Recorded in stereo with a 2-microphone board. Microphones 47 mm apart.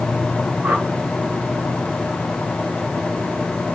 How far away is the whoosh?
About 2.5 m.